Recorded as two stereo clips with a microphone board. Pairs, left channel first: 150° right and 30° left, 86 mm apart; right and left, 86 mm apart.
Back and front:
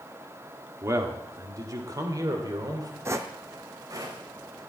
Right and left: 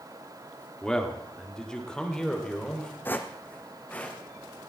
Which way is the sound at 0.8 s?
10° right.